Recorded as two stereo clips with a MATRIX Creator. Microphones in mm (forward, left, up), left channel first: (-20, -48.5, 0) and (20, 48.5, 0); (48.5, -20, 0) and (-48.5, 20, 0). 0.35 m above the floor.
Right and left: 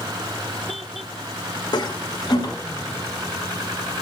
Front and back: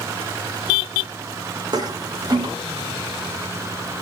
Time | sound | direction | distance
1.7 | a toilet flushing | 155° right | 0.6 m